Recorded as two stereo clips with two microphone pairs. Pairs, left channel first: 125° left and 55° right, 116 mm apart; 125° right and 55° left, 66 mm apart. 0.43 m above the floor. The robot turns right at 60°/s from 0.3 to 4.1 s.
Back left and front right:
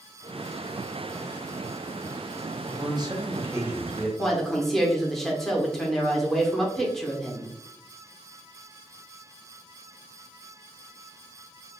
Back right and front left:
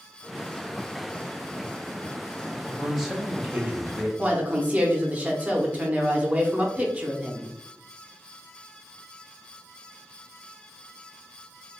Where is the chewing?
I don't hear chewing.